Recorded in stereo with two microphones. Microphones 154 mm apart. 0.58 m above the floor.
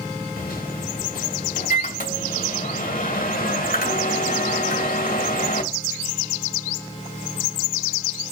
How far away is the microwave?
About 2.5 m.